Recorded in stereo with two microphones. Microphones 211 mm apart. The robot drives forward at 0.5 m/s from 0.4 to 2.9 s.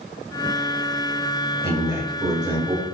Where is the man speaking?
15° right (ahead or behind), 1.6 m; by 2.9 s 20° right (ahead or behind), 1.1 m.